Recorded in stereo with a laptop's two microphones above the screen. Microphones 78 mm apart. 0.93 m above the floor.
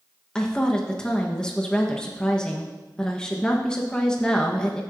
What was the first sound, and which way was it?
A woman speaking, 10° left (ahead or behind).